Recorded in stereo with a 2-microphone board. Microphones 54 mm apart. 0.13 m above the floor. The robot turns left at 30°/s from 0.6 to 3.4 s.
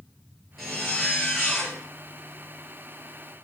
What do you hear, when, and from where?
0.6 s a zipper: straight behind, 2.5 m; by 1.8 s 140° left, 2.5 m